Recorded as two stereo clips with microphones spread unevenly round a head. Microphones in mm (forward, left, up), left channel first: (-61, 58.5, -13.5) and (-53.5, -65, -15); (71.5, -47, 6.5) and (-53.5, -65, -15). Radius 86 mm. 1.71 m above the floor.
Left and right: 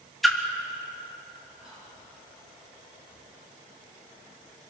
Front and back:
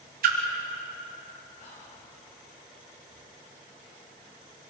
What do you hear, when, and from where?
0.2 s a splash: straight behind, 3 m
1.6 s whispering: 5° right, 7.5 m